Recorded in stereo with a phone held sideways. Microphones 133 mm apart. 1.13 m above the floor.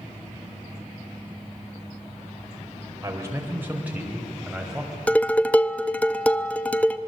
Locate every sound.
3.0 s a man speaking: 25° right (ahead or behind), 4 m; by 5.0 s centre (ahead or behind), 5.5 m
5.1 s dishes clattering: 10° left (ahead or behind), 0.7 m